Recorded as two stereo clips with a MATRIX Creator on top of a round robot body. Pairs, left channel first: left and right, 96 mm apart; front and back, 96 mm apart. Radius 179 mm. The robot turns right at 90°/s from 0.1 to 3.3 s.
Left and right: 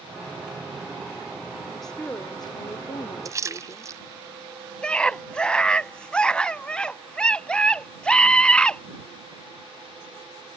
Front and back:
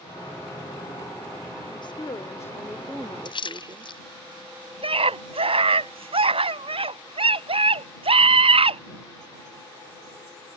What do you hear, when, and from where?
1.7 s a woman speaking: 5° right; by 4.0 s 135° left
3.2 s a splash: 35° right; by 4.0 s 30° right
4.8 s a scream: 170° left